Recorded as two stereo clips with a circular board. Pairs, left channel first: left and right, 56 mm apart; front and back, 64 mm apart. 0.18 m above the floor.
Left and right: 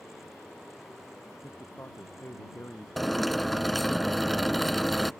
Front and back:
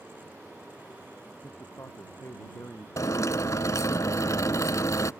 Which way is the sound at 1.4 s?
45° left.